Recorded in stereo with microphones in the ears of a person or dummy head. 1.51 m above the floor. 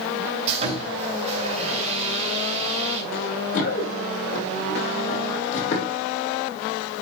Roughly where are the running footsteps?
Left.